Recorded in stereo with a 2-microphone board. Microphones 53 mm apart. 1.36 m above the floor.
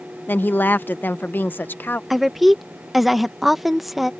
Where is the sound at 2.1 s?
Centre (ahead or behind).